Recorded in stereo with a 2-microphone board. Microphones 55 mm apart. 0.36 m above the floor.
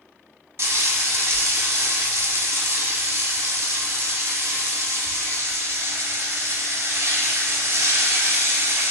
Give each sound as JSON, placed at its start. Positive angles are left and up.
{"t": 0.6, "sound": "frying", "side_deg": -60, "distance_m": 0.8}